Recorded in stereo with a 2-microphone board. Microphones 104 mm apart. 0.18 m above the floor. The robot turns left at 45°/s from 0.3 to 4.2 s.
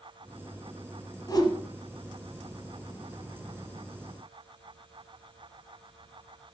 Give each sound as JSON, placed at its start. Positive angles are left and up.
{"t": 1.3, "sound": "a whoosh", "side_deg": 45, "distance_m": 1.7}